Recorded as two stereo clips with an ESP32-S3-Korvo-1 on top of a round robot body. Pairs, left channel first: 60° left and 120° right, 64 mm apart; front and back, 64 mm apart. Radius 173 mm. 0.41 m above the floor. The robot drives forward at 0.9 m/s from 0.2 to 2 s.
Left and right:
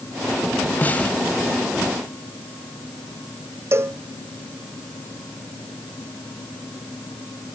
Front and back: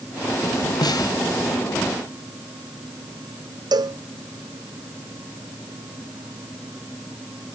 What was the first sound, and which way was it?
A snare drum, 5° right.